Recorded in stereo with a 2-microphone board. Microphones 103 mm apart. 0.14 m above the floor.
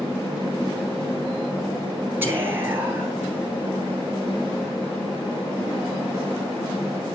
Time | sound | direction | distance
2.2 | whispering | 20° right (ahead or behind) | 1.8 m